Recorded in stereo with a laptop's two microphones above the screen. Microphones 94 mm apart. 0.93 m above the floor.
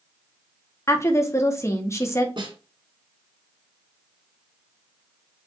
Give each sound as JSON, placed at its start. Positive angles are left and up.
{"t": 0.9, "sound": "a woman speaking", "side_deg": 30, "distance_m": 1.2}
{"t": 2.4, "sound": "a snare drum", "side_deg": -55, "distance_m": 2.5}